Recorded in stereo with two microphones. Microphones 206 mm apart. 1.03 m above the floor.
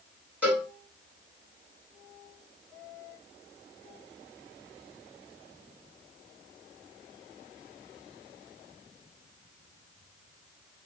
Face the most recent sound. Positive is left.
turn(degrees=-5)  # may be behind; listen again after turning